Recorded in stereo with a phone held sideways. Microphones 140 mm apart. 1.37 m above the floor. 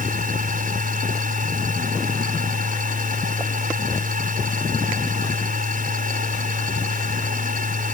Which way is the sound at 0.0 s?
80° right.